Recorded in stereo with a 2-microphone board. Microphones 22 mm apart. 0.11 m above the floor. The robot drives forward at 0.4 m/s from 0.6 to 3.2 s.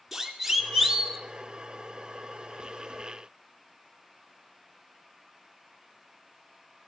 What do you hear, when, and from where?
0.1 s a siren: 10° right (ahead or behind), 2 m; by 1.2 s centre (ahead or behind), 1.9 m